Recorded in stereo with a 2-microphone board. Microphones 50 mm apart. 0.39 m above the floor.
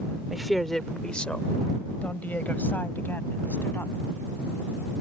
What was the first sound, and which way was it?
A woman speaking, 5° right (ahead or behind).